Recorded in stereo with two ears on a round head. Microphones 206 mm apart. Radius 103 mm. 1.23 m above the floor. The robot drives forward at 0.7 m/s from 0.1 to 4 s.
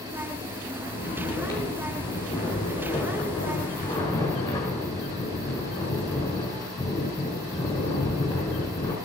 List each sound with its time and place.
0.8 s snoring: 10° left (ahead or behind), 7.5 m; by 8.9 s 15° left (ahead or behind), 5.5 m